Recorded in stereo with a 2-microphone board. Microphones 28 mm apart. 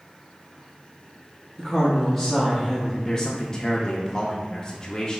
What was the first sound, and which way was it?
A woman speaking, 5° left (ahead or behind).